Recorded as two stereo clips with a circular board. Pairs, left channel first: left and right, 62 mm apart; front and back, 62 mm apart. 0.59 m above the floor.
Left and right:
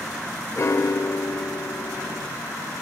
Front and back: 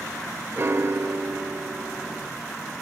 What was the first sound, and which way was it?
A piano, 130° left.